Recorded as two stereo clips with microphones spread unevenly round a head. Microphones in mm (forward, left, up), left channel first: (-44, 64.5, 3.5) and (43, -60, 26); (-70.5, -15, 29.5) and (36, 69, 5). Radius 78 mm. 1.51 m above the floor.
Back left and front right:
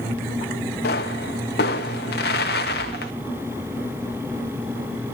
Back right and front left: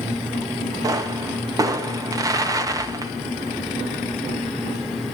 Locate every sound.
0.8 s a pop: 105° left, 1.7 m